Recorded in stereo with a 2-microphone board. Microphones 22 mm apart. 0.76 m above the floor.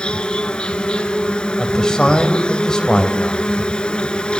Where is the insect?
45° left (ahead or behind), 0.9 m.